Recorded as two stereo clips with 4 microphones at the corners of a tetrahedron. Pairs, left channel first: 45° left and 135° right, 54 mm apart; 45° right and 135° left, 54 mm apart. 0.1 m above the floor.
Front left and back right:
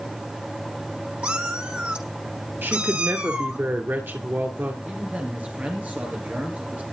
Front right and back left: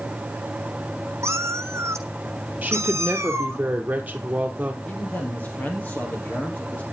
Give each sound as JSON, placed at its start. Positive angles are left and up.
{"t": 1.2, "sound": "a cat meowing", "azimuth_deg": 160, "distance_m": 1.3}
{"t": 2.6, "sound": "a woman speaking", "azimuth_deg": -170, "distance_m": 2.0}
{"t": 4.8, "sound": "a man speaking", "azimuth_deg": -85, "distance_m": 2.5}